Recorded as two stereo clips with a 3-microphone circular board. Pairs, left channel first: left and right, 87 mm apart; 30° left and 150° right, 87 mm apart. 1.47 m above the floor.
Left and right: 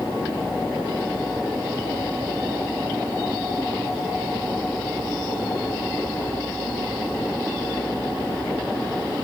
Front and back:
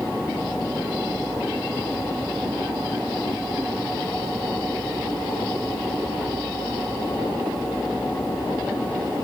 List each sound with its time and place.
Only background noise.